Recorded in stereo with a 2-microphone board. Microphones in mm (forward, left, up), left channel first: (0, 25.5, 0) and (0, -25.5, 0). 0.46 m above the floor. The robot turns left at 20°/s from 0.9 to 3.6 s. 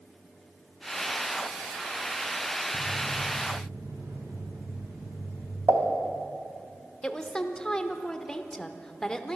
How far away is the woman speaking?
About 0.9 m.